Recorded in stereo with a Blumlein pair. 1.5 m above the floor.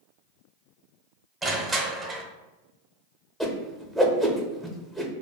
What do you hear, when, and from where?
1.4 s crushing: 10° right, 0.6 m
3.4 s a whoosh: straight ahead, 0.6 m